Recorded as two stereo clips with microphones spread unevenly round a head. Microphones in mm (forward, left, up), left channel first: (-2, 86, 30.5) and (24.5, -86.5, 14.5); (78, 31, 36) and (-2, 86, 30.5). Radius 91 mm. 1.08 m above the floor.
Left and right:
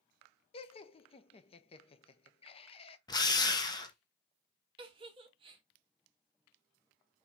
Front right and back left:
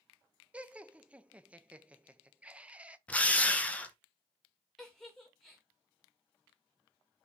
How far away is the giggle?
About 0.8 m.